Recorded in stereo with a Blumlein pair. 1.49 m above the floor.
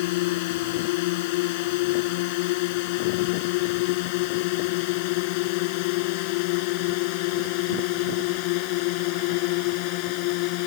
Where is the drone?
50° left; by 10.7 s 45° left.